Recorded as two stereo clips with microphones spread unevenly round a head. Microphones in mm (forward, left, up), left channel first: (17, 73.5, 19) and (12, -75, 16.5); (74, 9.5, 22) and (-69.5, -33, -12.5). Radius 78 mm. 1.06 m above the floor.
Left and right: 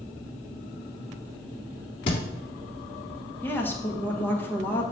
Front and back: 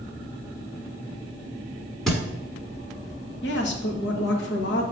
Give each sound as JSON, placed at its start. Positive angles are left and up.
{"t": 2.1, "sound": "a thud", "azimuth_deg": 80, "distance_m": 1.1}
{"t": 3.4, "sound": "a woman speaking", "azimuth_deg": 10, "distance_m": 1.1}